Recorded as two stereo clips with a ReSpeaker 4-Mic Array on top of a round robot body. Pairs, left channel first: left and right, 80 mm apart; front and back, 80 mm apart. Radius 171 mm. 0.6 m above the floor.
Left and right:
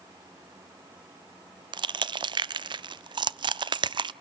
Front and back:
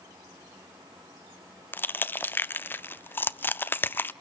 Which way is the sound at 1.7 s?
65° right.